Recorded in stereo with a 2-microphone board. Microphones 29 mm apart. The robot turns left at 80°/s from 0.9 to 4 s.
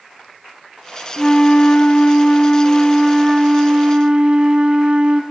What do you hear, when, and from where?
1.2 s a flute: 155° left, 0.9 m; by 5.2 s 70° right, 0.9 m